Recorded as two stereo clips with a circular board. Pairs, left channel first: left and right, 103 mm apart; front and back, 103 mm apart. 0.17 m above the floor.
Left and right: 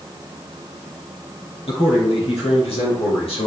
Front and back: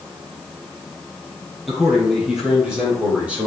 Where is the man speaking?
90° left, 4.5 m; by 3.5 s 105° left, 5 m.